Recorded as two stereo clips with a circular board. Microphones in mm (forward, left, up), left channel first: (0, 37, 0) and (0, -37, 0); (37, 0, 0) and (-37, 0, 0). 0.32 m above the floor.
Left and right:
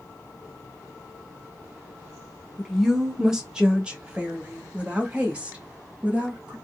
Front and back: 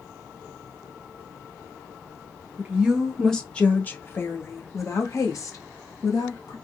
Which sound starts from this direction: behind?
A woman speaking, at 2.6 s.